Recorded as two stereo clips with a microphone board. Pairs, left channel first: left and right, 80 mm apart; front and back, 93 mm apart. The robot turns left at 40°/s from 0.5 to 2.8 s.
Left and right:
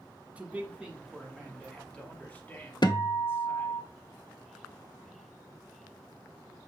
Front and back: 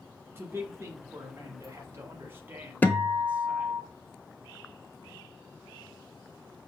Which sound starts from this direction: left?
A guitar, at 2.8 s.